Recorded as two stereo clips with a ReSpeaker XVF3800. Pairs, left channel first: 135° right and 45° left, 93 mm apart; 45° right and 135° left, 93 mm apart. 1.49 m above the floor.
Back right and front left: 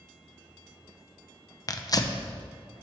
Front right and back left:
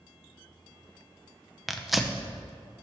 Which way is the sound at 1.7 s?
140° right.